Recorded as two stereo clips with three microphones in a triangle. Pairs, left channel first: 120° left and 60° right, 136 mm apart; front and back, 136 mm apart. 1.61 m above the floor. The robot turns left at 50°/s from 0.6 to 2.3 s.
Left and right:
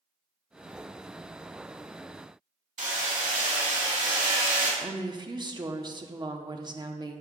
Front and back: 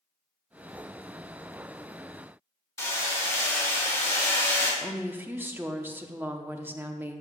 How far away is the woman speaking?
About 0.7 m.